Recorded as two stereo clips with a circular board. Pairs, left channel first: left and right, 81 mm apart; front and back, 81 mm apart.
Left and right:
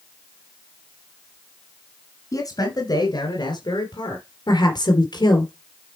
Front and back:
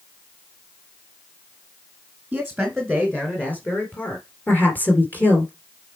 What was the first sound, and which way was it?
A man speaking, 105° left.